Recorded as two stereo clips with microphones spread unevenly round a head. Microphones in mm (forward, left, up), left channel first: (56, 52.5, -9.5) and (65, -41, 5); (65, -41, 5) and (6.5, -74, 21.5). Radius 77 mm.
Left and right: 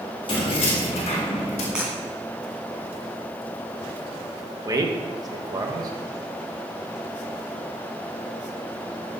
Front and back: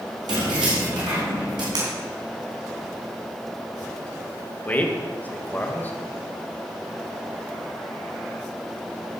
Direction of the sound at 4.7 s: 35° right.